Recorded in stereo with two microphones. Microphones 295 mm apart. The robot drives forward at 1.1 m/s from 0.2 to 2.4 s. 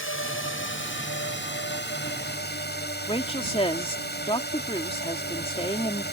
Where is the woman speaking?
20° left (ahead or behind).